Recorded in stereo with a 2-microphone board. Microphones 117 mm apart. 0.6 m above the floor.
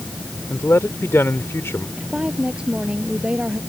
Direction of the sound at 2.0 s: 10° right (ahead or behind).